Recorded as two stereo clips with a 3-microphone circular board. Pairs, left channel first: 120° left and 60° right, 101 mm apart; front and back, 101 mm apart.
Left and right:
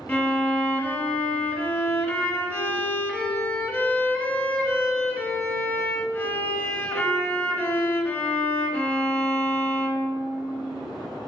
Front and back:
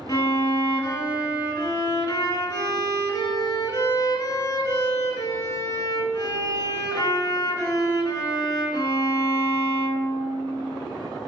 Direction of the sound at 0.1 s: 50° left.